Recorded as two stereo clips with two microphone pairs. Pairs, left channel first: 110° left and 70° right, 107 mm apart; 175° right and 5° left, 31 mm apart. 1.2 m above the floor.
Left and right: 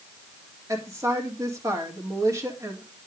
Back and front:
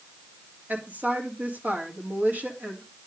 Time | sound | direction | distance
0.7 | a woman speaking | 10° right | 3 m